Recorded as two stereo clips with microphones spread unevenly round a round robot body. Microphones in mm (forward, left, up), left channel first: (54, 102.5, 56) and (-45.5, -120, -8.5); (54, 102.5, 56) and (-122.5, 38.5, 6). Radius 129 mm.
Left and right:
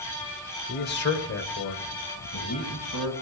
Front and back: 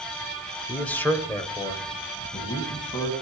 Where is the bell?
I don't hear a bell.